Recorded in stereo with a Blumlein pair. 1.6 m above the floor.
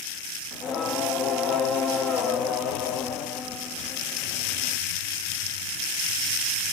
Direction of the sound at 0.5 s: 30° left.